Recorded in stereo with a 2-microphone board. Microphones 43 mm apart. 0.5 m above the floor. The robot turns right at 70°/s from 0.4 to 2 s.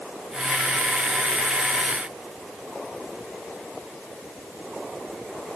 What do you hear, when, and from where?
Only background noise.